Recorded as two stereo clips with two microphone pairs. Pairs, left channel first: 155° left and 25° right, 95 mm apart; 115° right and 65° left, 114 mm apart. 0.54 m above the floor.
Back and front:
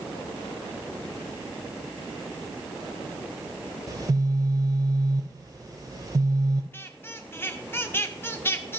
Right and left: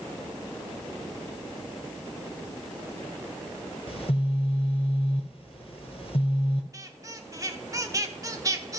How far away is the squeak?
About 0.8 m.